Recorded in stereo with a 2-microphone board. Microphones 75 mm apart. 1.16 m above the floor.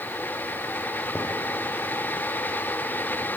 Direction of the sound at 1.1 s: 20° left (ahead or behind).